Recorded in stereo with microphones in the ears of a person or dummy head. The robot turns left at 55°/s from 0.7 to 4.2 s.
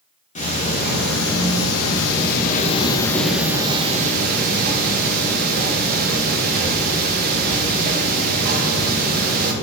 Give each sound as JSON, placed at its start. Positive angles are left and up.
{"t": 0.3, "sound": "ticking", "azimuth_deg": 140, "distance_m": 1.7}